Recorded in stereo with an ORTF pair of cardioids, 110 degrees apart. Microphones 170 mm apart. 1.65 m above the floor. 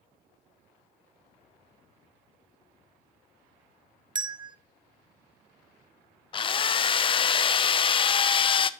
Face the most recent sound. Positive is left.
turn(degrees=30)